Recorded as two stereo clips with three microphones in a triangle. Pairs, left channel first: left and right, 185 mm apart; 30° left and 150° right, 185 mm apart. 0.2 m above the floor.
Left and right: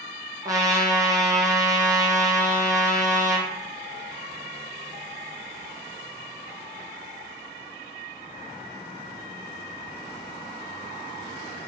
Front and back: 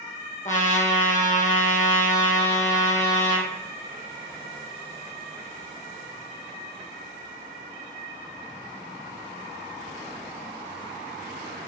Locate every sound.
0.5 s a trumpet: 20° right, 2 m